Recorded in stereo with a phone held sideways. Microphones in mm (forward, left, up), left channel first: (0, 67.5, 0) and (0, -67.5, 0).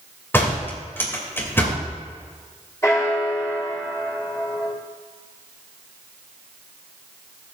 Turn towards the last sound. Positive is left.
turn(degrees=25)  # may be behind; listen again after turning